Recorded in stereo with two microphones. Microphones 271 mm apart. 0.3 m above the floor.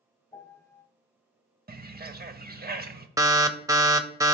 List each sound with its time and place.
0.3 s a piano: 10° left (ahead or behind), 1.0 m
1.7 s a bird: 35° right (ahead or behind), 0.6 m
3.2 s an alarm: 10° right (ahead or behind), 0.6 m